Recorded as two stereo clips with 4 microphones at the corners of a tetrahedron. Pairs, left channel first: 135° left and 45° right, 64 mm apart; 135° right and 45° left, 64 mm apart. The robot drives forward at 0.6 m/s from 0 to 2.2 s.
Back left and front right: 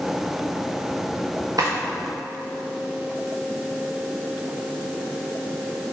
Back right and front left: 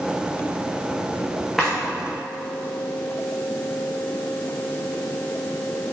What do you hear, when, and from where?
1.6 s a drawer: 40° right, 2.5 m